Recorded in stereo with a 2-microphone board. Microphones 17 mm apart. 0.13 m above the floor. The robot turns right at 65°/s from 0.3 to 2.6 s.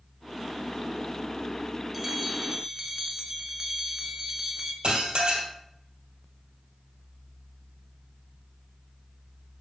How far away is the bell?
About 0.8 m.